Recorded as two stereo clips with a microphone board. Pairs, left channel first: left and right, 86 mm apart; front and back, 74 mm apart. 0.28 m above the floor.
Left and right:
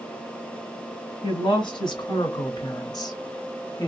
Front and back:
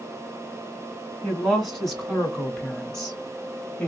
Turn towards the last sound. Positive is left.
turn(degrees=65)